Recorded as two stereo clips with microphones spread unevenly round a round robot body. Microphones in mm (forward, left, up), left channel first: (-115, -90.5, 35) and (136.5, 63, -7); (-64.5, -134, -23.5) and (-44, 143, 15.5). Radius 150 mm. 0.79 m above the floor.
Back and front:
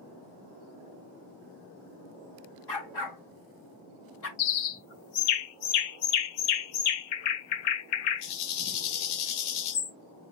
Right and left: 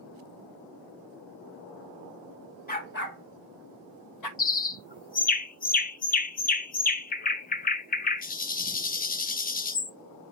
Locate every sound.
2.7 s a dog barking: 155° right, 1.9 m; by 4.3 s 105° right, 1.6 m
4.4 s a bird: 155° right, 0.7 m